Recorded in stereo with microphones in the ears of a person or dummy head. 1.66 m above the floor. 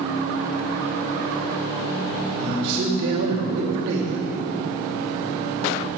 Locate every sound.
2.4 s a man speaking: 65° right (ahead or behind), 4.5 m